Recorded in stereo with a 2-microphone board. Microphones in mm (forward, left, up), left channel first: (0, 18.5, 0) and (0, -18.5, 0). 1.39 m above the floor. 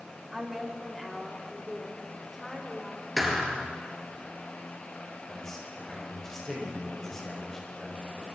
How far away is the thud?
About 4 m.